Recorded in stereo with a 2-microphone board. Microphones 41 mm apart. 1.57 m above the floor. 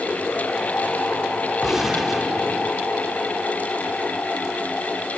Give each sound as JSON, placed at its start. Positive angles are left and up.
{"t": 1.6, "sound": "a gunshot", "side_deg": -5, "distance_m": 2.5}